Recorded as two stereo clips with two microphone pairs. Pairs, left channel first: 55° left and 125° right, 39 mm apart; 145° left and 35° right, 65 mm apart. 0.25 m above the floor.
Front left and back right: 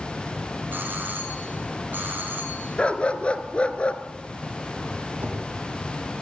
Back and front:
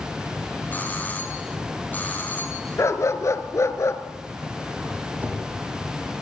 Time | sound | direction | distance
0.7 | a doorbell | 155° right | 5 m
2.8 | a dog barking | 110° left | 1.6 m
5.2 | a whoosh | 90° right | 8.5 m